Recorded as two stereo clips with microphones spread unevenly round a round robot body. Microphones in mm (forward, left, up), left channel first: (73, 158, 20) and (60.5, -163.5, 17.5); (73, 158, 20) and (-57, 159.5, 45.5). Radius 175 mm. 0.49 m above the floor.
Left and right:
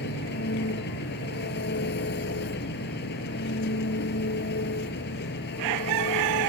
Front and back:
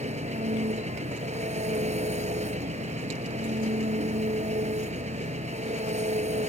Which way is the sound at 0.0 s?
150° left.